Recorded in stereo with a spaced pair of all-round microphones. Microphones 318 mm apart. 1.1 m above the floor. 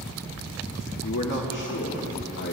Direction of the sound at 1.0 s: 65° left (ahead or behind).